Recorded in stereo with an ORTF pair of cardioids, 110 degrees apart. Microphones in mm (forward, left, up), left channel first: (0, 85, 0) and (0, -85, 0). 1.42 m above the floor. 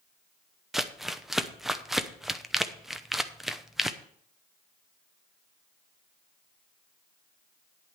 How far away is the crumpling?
About 0.7 m.